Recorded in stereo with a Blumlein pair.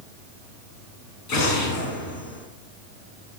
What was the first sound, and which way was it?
An explosion, 40° left.